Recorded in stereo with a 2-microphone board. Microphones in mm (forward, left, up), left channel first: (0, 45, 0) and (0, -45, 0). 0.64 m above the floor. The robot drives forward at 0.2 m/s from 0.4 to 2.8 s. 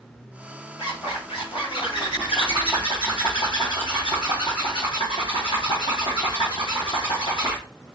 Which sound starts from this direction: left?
A zipper, at 0.8 s.